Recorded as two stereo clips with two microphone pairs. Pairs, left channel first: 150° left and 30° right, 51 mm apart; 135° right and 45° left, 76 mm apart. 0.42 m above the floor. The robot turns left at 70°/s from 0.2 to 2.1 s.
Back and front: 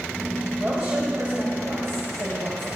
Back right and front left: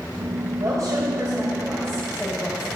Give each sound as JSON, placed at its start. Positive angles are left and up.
{"t": 0.6, "sound": "a woman speaking", "azimuth_deg": 40, "distance_m": 2.5}